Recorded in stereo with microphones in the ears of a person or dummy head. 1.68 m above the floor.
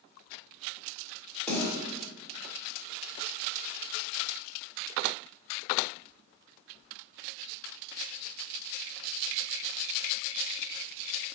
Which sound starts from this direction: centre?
A snare drum, at 1.5 s.